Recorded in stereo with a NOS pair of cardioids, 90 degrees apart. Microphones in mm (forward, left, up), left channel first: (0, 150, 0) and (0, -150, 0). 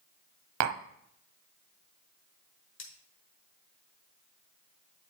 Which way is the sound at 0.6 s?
70° right.